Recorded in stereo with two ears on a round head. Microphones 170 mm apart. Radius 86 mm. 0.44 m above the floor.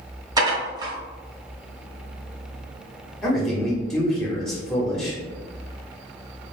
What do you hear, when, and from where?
0.4 s dishes clattering: 20° right (ahead or behind), 1.1 m
3.2 s a man speaking: centre (ahead or behind), 1.1 m